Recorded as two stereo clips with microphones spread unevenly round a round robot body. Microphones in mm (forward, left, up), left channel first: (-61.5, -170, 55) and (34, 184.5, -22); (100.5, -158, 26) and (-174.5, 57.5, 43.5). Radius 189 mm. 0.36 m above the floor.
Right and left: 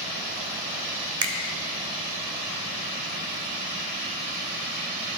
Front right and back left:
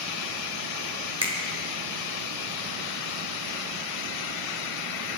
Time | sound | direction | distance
1.2 | a finger snap | 70° left | 1.2 m